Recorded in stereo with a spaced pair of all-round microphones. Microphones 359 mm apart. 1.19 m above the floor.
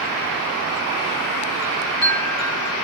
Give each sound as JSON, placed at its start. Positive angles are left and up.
{"t": 1.6, "sound": "a chime", "side_deg": 45, "distance_m": 3.0}